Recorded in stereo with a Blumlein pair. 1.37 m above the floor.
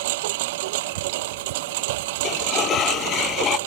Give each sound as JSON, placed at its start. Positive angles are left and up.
{"t": 0.0, "sound": "a lawn mower", "azimuth_deg": -50}
{"t": 2.2, "sound": "a sliding door", "azimuth_deg": 30}